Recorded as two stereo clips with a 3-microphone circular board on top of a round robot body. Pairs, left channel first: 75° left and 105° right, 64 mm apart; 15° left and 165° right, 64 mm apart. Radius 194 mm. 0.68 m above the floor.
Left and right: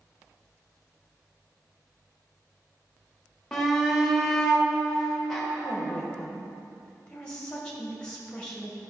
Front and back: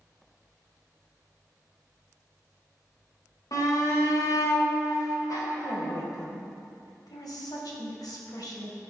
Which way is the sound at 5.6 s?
Straight ahead.